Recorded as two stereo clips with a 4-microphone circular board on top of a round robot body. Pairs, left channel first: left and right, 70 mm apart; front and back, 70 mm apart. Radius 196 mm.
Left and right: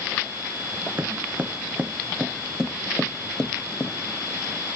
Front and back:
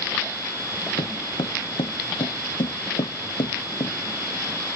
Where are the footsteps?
30° right; by 3.9 s 20° left.